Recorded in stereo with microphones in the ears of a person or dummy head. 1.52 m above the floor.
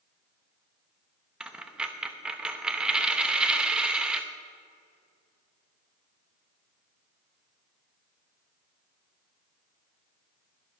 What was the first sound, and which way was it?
A dropped coin, 10° right (ahead or behind).